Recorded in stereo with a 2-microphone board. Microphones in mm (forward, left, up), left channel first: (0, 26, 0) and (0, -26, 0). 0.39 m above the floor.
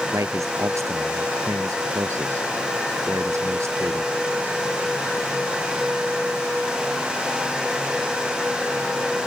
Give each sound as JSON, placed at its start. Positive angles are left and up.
{"t": 0.1, "sound": "a man speaking", "side_deg": -75}